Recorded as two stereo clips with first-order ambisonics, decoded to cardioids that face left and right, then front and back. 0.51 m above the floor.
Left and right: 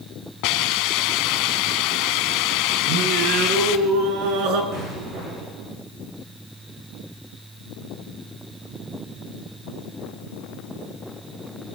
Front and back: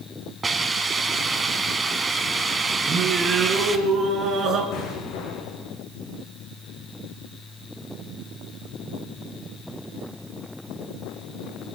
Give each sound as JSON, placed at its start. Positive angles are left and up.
{"t": 0.4, "sound": "a hiss", "azimuth_deg": 105, "distance_m": 1.6}
{"t": 2.9, "sound": "singing", "azimuth_deg": -120, "distance_m": 4.0}
{"t": 4.7, "sound": "an explosion", "azimuth_deg": -40, "distance_m": 8.0}